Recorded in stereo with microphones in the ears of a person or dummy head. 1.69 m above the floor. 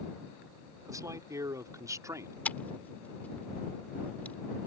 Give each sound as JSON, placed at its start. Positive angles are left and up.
{"t": 0.8, "sound": "a man speaking", "side_deg": -20}
{"t": 2.5, "sound": "scissors", "side_deg": 10}